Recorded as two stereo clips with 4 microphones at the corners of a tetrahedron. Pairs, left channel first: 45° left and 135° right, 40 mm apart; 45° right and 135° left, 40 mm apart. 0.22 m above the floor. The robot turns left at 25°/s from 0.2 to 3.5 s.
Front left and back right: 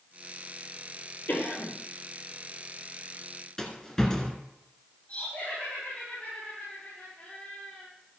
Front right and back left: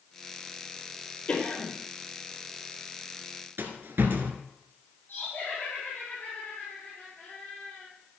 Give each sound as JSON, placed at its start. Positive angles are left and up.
{"t": 1.3, "sound": "a cough", "azimuth_deg": 15, "distance_m": 4.5}
{"t": 3.6, "sound": "a rattle", "azimuth_deg": 120, "distance_m": 1.5}
{"t": 5.1, "sound": "laughter", "azimuth_deg": -10, "distance_m": 6.0}